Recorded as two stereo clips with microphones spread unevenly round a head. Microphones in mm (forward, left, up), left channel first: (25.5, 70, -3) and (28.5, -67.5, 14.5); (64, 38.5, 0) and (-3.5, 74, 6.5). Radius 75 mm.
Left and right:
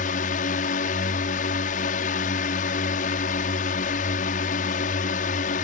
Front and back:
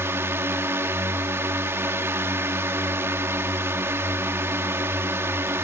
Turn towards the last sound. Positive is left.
turn(degrees=100)